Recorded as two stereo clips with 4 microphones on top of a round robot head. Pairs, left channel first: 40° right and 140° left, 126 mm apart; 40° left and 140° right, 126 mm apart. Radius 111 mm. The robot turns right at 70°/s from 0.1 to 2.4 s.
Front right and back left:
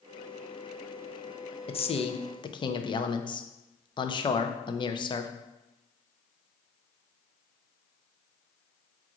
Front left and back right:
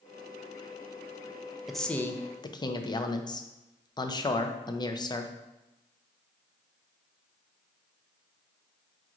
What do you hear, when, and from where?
1.7 s a man speaking: 55° right, 0.6 m; by 5.3 s 5° right, 0.6 m